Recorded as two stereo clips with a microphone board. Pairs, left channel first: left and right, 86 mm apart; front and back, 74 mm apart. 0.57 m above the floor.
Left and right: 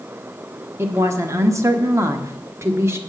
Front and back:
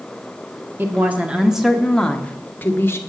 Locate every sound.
0.8 s a woman speaking: 135° right, 1.2 m; by 3.0 s 45° right, 1.3 m